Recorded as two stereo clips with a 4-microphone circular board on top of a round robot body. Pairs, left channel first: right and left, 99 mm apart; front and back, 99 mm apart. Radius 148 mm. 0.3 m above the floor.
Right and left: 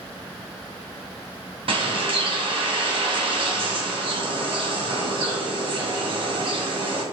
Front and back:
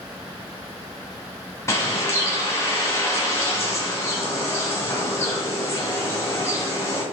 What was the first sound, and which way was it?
A bird, 65° left.